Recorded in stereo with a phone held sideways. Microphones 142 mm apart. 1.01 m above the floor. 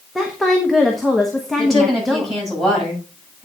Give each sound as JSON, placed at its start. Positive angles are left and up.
{"t": 0.1, "sound": "a woman speaking", "side_deg": 0, "distance_m": 1.1}
{"t": 1.6, "sound": "a woman speaking", "side_deg": 0, "distance_m": 6.5}